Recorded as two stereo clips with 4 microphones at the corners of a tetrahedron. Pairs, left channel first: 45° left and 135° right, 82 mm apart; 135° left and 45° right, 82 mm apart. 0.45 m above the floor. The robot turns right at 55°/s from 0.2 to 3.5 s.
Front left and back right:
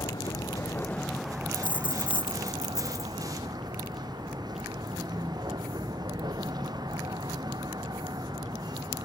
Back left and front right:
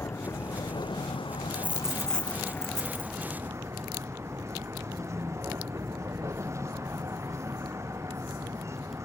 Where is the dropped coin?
20° left; by 3.3 s 120° left.